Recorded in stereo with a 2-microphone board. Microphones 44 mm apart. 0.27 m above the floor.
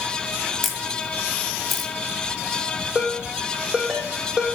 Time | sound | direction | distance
0.6 | a camera shutter | 5° left (ahead or behind) | 1.4 m
3.0 | a ringtone | 15° right (ahead or behind) | 5 m